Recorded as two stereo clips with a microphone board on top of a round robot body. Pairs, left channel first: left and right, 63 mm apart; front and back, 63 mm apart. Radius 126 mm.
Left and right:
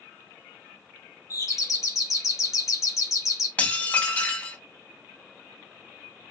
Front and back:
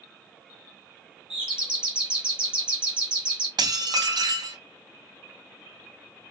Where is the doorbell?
105° left, 2.5 m.